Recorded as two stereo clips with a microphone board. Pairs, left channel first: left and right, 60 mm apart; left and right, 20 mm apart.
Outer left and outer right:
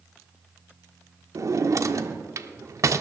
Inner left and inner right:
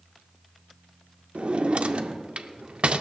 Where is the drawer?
60° right (ahead or behind), 0.5 m.